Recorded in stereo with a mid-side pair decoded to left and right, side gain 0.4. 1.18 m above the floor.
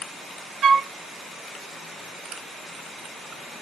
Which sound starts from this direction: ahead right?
A flute, at 0.6 s.